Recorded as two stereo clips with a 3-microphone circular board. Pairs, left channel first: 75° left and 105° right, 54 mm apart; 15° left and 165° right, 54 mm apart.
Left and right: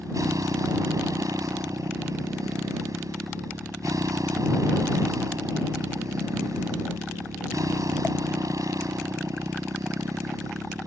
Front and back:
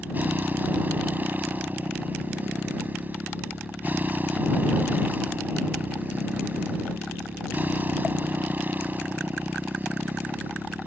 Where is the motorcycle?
110° right.